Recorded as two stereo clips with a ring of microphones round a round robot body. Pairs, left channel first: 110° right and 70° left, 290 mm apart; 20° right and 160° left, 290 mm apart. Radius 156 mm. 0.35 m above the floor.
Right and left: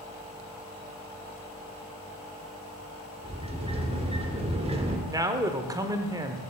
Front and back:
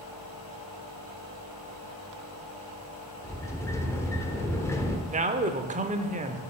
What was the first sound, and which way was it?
A sliding door, 40° left.